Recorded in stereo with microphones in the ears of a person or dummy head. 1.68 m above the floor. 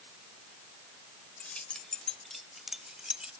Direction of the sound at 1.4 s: 10° left (ahead or behind).